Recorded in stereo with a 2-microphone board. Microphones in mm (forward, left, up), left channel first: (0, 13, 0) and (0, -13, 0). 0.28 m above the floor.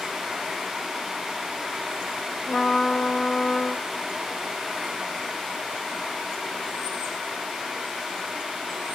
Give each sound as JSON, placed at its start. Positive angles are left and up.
{"t": 2.5, "sound": "a trumpet", "side_deg": 55, "distance_m": 2.0}